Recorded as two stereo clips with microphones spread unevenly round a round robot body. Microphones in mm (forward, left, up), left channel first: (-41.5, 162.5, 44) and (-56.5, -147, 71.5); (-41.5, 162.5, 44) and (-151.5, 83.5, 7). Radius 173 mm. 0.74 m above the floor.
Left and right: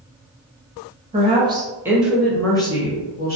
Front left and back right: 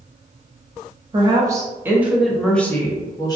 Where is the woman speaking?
160° right, 1.2 m; by 3.4 s 100° left, 1.0 m.